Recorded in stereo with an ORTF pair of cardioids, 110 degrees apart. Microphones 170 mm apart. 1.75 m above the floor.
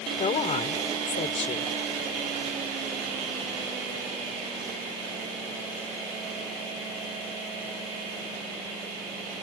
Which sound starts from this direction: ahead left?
A woman speaking, at 0.2 s.